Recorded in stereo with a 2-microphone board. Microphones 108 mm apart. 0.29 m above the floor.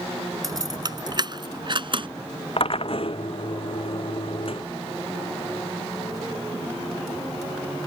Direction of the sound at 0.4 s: 35° right (ahead or behind).